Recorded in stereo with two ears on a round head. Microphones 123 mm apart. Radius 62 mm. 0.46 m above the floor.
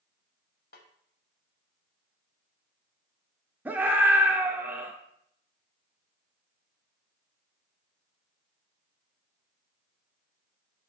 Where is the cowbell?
No cowbell in this recording.